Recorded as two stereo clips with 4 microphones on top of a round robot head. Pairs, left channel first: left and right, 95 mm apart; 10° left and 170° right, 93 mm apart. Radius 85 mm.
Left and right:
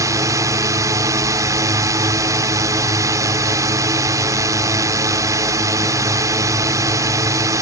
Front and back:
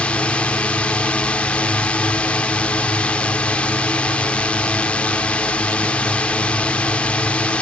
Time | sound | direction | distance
0.0 | a drone | 60° right | ?